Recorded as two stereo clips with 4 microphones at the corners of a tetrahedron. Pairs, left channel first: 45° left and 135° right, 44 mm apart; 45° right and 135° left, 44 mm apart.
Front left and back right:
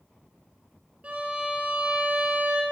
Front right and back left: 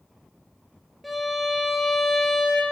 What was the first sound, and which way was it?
A violin, 140° right.